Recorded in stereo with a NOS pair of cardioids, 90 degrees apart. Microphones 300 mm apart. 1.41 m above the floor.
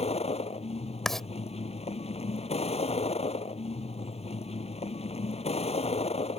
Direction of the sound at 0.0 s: 20° left.